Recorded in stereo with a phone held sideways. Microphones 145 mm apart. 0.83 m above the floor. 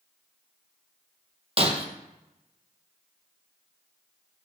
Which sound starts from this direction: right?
Breaking glass, at 1.6 s.